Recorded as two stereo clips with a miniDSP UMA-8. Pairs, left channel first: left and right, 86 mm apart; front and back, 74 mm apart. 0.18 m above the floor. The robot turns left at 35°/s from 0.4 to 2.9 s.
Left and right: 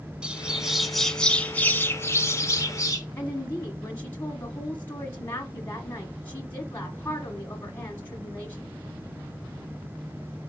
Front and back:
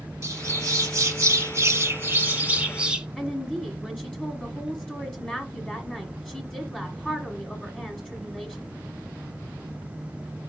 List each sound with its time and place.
0.2 s a bird: 165° right, 1.0 m; by 3.1 s 105° left, 1.0 m
3.2 s a woman speaking: 65° left, 1.2 m